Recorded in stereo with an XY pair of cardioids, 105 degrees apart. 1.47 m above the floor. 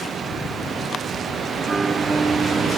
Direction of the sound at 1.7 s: 25° right.